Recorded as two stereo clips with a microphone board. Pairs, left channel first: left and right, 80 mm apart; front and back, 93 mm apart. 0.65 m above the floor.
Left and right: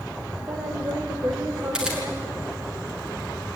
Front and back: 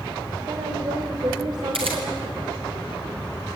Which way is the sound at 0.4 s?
140° right.